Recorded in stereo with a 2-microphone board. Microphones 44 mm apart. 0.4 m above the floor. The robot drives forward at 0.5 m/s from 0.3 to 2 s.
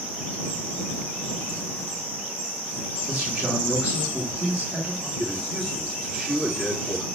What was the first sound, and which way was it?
A man speaking, 5° right (ahead or behind).